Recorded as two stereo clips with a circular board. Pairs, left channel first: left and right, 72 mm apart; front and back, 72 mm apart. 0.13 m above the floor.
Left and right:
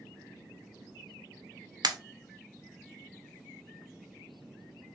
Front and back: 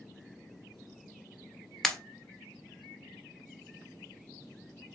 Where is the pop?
85° right, 0.6 m.